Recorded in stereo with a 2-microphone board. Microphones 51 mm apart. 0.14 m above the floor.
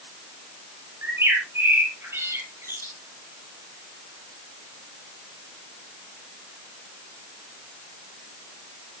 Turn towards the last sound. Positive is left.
turn(degrees=-55)  # may be behind; listen again after turning